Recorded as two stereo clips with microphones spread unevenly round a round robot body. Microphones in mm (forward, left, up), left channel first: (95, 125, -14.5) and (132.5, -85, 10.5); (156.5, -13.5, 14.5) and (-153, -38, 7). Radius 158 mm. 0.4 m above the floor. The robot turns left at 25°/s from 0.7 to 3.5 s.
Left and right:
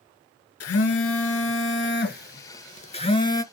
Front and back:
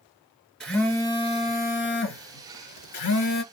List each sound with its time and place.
0.6 s a phone buzzing: 90° left, 1.2 m; by 3.4 s 25° left, 1.2 m